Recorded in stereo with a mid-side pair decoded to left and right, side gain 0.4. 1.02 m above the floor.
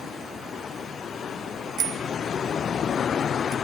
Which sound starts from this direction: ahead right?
A bicycle bell, at 1.8 s.